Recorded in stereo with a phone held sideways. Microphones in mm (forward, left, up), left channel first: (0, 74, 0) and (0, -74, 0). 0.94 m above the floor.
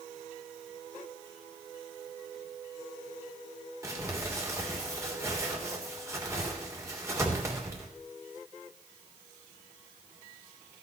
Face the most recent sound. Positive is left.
turn(degrees=-20)  # may be behind; listen again after turning